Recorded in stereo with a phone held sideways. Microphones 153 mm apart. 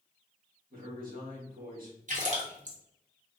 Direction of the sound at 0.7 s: 65° right (ahead or behind).